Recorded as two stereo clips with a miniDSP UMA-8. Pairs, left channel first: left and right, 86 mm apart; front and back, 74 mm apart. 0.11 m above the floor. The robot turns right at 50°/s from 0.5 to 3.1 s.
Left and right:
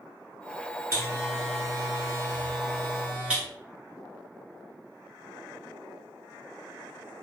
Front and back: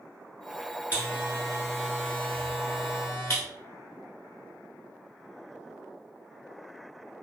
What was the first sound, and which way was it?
A buzzer, 130° right.